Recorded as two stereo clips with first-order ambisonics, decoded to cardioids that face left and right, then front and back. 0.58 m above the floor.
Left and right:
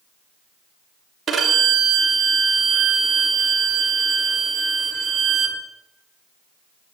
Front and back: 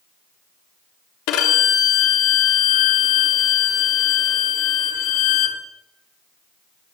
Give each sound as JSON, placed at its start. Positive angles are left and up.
{"t": 1.3, "sound": "a violin", "azimuth_deg": -20, "distance_m": 3.5}